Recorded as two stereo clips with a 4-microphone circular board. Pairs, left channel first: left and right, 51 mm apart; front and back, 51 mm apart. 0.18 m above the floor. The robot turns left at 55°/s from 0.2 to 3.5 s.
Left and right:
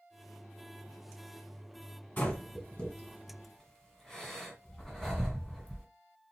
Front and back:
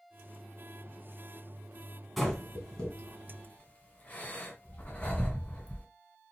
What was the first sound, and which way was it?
Breathing, 90° left.